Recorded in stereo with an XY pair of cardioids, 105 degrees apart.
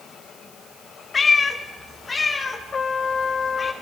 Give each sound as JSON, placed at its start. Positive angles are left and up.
{"t": 1.1, "sound": "a cat meowing", "azimuth_deg": 35, "distance_m": 2.0}
{"t": 2.7, "sound": "a trumpet", "azimuth_deg": 35, "distance_m": 0.8}